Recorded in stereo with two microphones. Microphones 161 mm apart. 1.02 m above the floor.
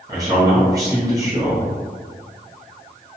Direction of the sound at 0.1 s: 20° right (ahead or behind).